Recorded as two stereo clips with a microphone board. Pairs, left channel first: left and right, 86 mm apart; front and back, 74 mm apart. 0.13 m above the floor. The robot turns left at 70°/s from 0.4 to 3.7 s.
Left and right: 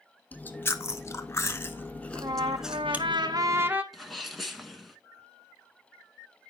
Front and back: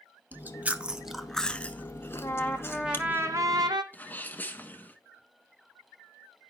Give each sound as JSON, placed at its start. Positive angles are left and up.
{"t": 0.3, "sound": "chewing", "azimuth_deg": 145, "distance_m": 1.0}
{"t": 2.1, "sound": "a trumpet", "azimuth_deg": -50, "distance_m": 1.1}
{"t": 3.9, "sound": "a sneeze", "azimuth_deg": 0, "distance_m": 1.1}